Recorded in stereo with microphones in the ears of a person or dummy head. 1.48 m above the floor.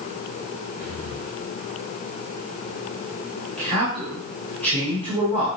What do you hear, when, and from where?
0.8 s breathing: 45° right (ahead or behind), 1.9 m
3.6 s a man speaking: 40° right (ahead or behind), 5 m